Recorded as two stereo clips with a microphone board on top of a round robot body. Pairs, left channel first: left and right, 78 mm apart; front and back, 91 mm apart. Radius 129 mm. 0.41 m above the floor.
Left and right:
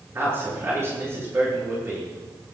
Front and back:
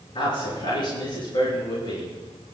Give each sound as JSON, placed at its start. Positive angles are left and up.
{"t": 0.1, "sound": "a man speaking", "azimuth_deg": -30, "distance_m": 8.0}